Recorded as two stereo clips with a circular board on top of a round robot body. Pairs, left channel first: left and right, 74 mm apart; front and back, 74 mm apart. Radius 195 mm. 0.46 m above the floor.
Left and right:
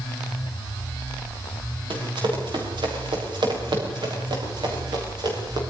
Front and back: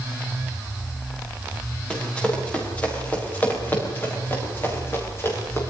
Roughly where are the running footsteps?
Right.